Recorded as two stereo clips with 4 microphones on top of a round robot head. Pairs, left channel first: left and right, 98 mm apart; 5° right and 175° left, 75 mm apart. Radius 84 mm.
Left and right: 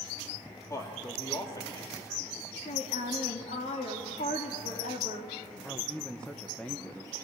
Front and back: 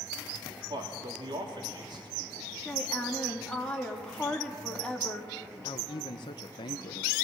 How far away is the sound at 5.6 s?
About 0.9 m.